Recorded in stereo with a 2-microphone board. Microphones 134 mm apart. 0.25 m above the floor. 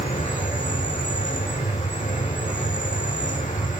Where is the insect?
70° left (ahead or behind), 4 m.